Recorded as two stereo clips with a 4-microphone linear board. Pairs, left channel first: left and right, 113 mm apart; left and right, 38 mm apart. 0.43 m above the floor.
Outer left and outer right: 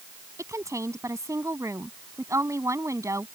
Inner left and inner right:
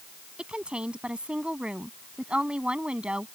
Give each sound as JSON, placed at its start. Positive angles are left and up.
{"t": 0.4, "sound": "a woman speaking", "side_deg": -25}